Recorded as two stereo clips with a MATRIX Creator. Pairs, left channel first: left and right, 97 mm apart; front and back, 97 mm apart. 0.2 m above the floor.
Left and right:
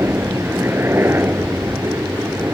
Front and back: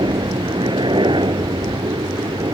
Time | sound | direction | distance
0.0 | a helicopter | 155° right | ?